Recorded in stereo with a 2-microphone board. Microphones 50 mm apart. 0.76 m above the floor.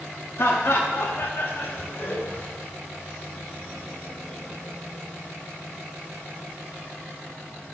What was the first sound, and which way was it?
Laughter, 60° left (ahead or behind).